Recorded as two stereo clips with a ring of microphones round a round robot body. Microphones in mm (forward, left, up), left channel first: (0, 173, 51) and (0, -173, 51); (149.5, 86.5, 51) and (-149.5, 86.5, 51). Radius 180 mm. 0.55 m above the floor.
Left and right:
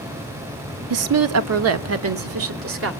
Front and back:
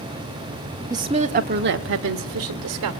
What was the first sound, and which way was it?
A woman speaking, 105° right.